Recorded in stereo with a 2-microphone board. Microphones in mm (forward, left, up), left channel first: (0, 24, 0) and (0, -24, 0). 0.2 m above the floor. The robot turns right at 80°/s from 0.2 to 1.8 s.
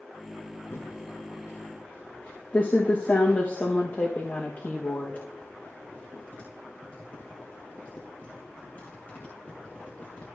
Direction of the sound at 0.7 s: 55° left (ahead or behind).